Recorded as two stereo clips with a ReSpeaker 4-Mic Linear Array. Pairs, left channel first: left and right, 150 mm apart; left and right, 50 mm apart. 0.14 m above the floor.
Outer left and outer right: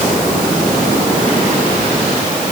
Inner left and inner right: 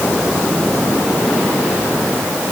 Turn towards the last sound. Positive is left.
No sound to turn to.